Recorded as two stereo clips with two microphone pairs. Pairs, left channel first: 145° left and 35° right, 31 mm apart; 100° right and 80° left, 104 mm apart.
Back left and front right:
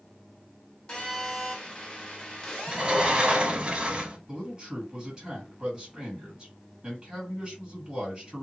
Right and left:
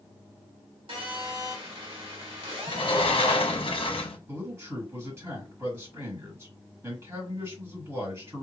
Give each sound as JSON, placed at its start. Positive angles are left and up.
{"t": 0.9, "sound": "a phone buzzing", "azimuth_deg": 80, "distance_m": 1.3}
{"t": 2.7, "sound": "a sliding door", "azimuth_deg": -85, "distance_m": 0.6}
{"t": 4.3, "sound": "a man speaking", "azimuth_deg": 30, "distance_m": 2.0}